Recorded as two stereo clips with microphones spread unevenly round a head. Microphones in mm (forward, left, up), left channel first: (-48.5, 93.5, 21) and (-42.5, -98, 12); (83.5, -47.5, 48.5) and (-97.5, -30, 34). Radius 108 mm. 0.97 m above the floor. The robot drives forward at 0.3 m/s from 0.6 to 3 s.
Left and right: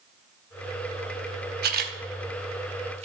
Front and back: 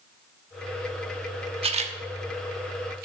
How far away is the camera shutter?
About 0.7 m.